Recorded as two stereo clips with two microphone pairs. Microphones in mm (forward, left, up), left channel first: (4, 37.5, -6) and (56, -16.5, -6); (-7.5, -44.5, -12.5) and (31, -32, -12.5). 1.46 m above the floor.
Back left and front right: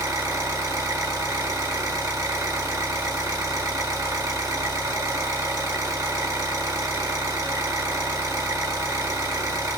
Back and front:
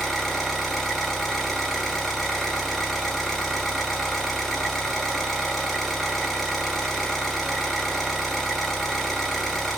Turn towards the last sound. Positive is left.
turn(degrees=-80)